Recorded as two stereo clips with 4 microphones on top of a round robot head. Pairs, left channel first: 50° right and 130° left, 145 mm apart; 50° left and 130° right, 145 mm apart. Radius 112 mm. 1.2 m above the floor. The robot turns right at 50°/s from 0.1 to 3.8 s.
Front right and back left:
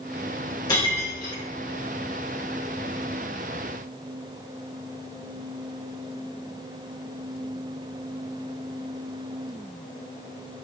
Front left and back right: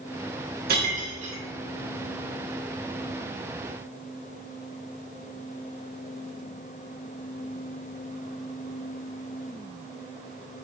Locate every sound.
0.7 s breaking glass: 115° right, 2 m; by 1.4 s 80° right, 2 m